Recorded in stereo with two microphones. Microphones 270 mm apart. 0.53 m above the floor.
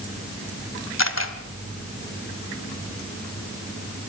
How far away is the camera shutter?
About 1.6 m.